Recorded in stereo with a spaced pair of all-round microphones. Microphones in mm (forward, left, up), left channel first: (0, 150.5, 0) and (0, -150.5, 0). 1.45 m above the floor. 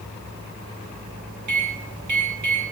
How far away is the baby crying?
No baby crying in this recording.